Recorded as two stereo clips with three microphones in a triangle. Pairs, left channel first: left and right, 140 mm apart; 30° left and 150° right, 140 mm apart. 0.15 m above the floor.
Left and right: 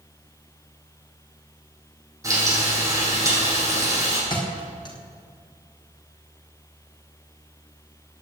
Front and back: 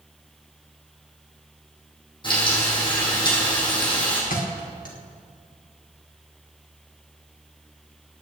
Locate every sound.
2.2 s frying: 25° right, 6 m
4.3 s a thud: 30° left, 3 m